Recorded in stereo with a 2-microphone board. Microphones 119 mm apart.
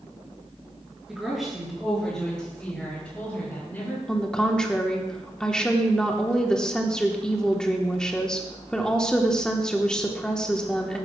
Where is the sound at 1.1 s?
5° right (ahead or behind), 5.5 m; by 4.0 s 15° left (ahead or behind), 8 m.